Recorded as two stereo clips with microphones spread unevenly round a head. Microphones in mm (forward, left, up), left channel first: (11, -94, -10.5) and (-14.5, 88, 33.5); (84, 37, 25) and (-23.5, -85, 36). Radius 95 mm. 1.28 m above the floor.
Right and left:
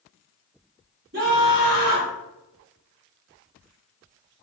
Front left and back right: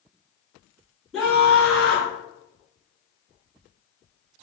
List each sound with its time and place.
1.1 s a scream: 140° left, 2.5 m